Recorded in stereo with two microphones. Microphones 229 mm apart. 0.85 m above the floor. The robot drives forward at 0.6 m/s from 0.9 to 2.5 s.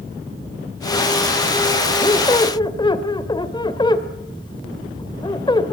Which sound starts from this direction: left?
A squeak, at 2.0 s.